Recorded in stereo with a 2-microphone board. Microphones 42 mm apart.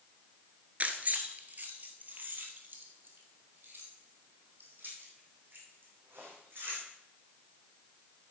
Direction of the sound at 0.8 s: 35° right (ahead or behind).